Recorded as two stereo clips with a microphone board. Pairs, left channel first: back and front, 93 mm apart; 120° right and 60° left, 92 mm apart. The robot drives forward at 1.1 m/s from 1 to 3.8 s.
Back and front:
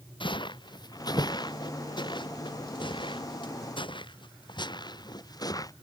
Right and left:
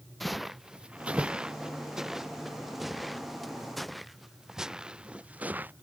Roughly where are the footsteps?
Behind left.